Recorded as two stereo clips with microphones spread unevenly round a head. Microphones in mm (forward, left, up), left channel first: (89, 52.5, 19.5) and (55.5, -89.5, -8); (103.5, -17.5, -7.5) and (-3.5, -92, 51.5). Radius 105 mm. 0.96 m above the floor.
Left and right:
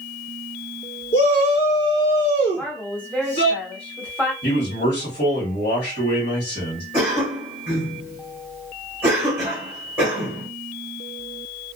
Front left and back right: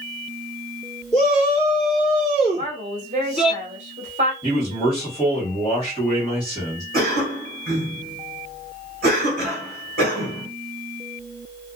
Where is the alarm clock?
No alarm clock in this recording.